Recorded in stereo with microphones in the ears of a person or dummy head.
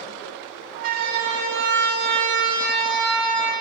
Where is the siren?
50° right (ahead or behind), 4 m; by 3.5 s 65° right (ahead or behind), 5.5 m.